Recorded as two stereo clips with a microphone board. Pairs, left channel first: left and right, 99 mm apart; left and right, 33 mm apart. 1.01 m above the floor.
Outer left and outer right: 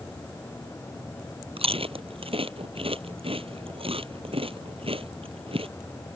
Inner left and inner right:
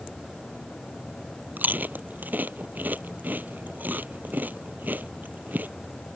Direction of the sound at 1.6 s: 90° right.